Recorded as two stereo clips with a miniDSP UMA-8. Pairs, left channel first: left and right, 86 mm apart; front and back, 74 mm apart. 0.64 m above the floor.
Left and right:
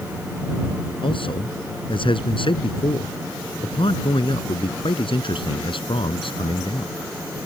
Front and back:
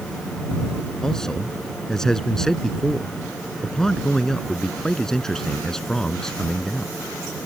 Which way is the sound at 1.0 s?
80° left.